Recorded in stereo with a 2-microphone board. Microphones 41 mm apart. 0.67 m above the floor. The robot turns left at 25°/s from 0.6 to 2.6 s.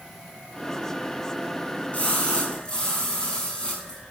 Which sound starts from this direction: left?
A splash, at 1.9 s.